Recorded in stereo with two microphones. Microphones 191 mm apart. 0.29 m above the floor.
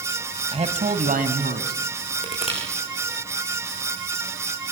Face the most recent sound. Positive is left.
turn(degrees=30)  # may be behind; listen again after turning